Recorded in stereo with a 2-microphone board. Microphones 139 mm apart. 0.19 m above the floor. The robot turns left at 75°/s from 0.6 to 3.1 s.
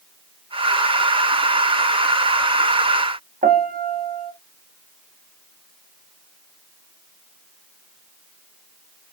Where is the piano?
75° right (ahead or behind), 0.6 m.